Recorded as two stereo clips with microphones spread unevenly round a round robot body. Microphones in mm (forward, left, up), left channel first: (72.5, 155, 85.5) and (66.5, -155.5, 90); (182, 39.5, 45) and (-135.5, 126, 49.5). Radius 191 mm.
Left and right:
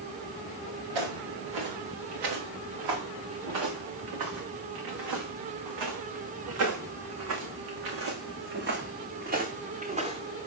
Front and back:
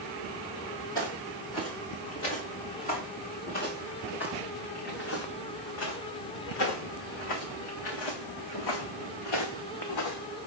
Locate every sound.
0.9 s footsteps: 95° right, 5 m; by 10.5 s 15° right, 2.5 m